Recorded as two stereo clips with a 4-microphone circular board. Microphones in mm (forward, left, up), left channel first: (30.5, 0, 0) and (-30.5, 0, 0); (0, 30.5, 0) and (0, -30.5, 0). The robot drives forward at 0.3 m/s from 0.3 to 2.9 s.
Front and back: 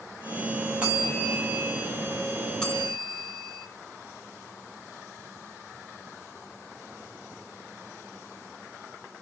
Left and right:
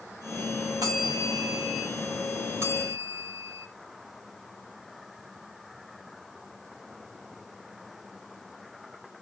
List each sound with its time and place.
0.8 s a bell: 105° right, 3 m; by 1.9 s 110° right, 3.5 m
2.6 s a bell: 70° right, 2.0 m; by 3.7 s 75° right, 2.0 m